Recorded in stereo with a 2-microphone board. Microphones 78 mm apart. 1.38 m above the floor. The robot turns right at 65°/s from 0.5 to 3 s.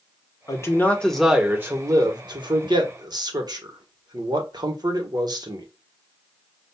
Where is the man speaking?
135° left, 1.3 m; by 5.7 s 65° right, 1.3 m.